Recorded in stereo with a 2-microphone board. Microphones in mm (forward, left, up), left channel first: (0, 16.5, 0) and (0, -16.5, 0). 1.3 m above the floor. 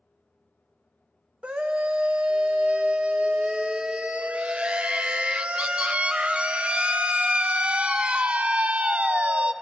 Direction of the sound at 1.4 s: 35° right (ahead or behind).